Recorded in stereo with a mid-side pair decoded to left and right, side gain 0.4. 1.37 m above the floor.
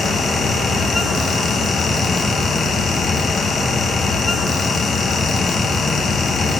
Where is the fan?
55° left, 1.0 m.